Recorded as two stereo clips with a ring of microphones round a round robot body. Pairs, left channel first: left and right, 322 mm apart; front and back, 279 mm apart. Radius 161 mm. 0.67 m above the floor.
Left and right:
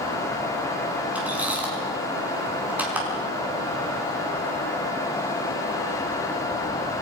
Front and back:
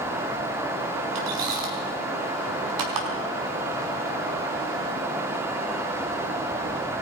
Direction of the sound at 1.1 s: 175° right.